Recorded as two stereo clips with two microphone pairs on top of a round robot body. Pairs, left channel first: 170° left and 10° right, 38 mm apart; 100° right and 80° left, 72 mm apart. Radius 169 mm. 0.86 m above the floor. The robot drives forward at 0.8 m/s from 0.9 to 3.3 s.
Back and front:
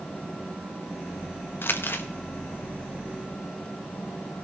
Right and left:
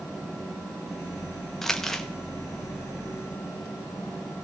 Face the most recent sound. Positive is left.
turn(degrees=175)